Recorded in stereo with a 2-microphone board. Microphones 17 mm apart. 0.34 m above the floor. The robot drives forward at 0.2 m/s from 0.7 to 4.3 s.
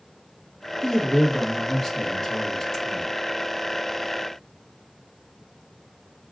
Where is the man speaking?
30° left (ahead or behind), 1.2 m.